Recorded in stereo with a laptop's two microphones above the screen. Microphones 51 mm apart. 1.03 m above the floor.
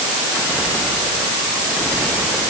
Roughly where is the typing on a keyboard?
No typing on a keyboard in this recording.